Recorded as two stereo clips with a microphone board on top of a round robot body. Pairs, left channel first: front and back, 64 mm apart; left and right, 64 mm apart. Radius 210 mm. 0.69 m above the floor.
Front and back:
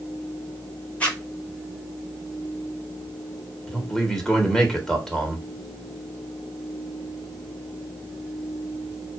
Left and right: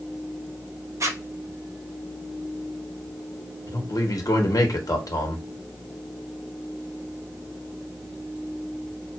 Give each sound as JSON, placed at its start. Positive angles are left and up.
{"t": 1.0, "sound": "a zipper", "azimuth_deg": -65, "distance_m": 1.8}
{"t": 3.7, "sound": "a man speaking", "azimuth_deg": 80, "distance_m": 1.5}